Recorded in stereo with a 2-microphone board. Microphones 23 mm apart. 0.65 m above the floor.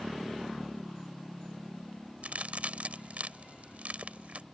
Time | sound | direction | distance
2.2 | a crack | 70° right (ahead or behind) | ?